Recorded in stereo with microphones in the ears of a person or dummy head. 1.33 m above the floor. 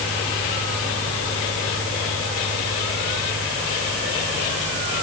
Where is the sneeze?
I don't hear a sneeze.